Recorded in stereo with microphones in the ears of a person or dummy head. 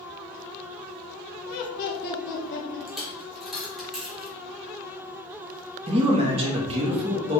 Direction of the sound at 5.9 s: 25° right (ahead or behind).